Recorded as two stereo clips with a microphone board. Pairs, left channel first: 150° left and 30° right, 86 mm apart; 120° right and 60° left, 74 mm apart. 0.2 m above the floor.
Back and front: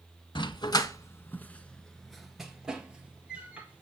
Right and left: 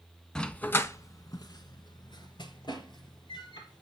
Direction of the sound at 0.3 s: 160° left.